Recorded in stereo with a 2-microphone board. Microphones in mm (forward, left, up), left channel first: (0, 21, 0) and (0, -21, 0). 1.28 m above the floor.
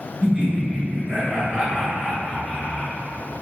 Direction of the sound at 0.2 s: 35° right (ahead or behind).